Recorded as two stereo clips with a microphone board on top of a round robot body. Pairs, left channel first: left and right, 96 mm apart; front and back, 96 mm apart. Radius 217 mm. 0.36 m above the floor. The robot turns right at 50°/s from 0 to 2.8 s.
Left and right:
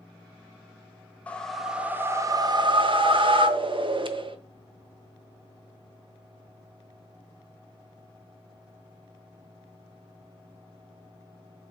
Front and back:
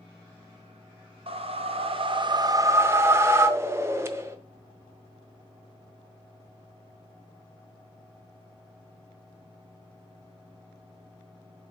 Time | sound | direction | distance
1.3 | a whoosh | 165° left | 0.7 m